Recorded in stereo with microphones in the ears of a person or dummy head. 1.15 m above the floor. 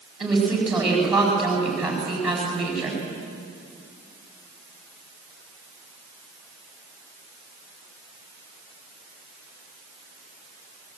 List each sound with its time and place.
0.2 s a woman speaking: 5° right (ahead or behind), 8.5 m